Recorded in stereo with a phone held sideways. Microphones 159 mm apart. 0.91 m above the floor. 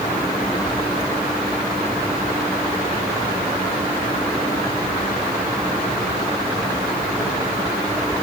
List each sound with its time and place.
Only background noise.